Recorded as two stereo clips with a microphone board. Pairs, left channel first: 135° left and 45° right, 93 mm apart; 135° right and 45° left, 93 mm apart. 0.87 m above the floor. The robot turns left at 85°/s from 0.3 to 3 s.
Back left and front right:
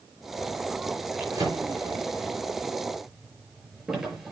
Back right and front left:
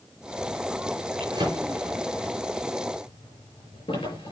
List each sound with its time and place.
1.2 s a drawer: 25° left, 5.5 m; by 4.3 s 130° right, 5.5 m